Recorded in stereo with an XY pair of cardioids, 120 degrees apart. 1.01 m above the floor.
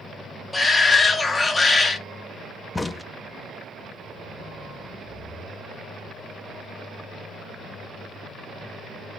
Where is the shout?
20° left, 1.7 m.